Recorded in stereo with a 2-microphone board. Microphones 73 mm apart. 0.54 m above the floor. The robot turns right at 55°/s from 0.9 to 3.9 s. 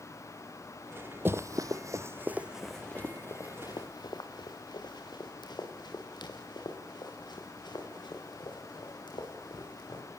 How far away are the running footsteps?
About 0.6 m.